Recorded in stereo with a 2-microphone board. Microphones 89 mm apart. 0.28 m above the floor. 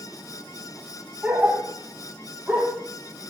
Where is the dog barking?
20° right (ahead or behind), 3 m.